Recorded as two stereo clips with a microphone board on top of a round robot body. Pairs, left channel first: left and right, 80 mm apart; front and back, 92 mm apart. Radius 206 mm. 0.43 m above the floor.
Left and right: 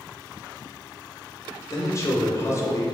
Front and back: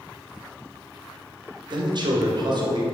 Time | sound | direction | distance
1.7 | a man speaking | 140° left | 2.5 m